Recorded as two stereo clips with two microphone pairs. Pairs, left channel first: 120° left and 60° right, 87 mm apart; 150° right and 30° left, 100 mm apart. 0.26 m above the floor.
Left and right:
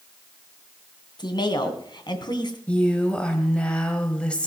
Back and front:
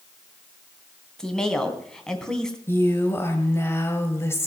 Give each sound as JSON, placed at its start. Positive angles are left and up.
{"t": 1.2, "sound": "a woman speaking", "azimuth_deg": 130, "distance_m": 2.5}
{"t": 2.7, "sound": "a woman speaking", "azimuth_deg": 180, "distance_m": 1.5}